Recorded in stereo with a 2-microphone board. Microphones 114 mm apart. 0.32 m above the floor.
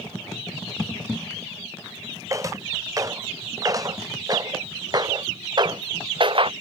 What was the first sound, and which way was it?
Footsteps, 30° right (ahead or behind).